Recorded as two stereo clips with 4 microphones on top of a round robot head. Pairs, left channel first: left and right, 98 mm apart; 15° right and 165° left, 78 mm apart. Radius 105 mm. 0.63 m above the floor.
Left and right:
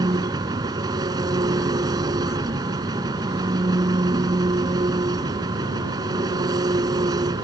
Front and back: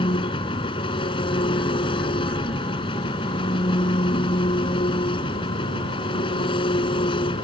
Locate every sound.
0.0 s an engine running: 35° right